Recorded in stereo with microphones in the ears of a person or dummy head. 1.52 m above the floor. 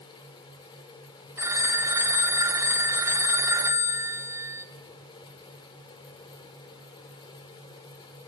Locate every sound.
0.0 s a fan: 20° left (ahead or behind), 4 m
1.4 s a phone ringing: 10° right (ahead or behind), 0.8 m